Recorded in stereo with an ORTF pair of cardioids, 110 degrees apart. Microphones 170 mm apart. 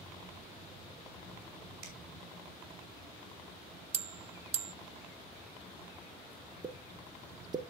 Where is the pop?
25° right, 0.9 m.